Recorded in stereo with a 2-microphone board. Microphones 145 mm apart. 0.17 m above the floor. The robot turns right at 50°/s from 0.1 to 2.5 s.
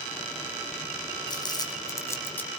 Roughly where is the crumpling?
Left.